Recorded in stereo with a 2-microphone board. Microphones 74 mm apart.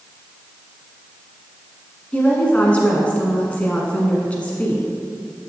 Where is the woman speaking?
20° left (ahead or behind), 1.1 m.